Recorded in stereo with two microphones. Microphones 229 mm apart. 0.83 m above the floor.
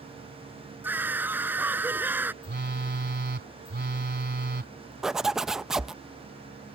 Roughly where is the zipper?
Centre.